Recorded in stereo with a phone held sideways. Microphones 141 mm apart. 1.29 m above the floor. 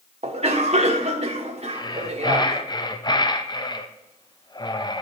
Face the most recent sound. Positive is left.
turn(degrees=30)  # may be behind; listen again after turning